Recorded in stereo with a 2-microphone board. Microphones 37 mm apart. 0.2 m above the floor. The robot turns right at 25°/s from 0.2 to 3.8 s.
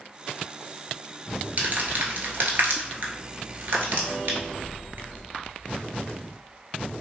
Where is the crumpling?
50° right (ahead or behind), 0.8 m; by 5.2 s 70° right (ahead or behind), 0.8 m.